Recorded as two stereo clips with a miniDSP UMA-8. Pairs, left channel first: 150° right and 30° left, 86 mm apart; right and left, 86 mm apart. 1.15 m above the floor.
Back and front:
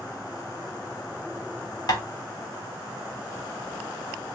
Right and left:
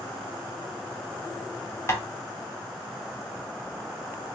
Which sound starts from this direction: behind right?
Tapping, at 1.9 s.